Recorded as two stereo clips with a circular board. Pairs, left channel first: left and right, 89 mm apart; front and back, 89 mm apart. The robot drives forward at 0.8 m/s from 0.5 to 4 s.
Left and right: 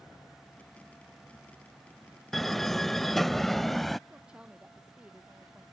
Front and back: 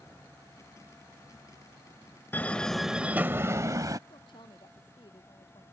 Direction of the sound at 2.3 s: 5° left.